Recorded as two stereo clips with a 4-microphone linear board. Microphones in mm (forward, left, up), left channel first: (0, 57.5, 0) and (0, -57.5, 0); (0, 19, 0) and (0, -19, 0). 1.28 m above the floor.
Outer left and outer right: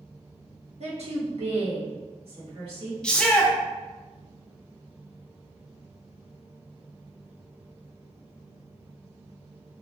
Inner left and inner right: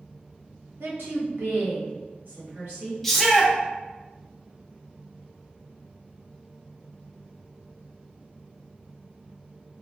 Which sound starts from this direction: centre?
A shout, at 3.0 s.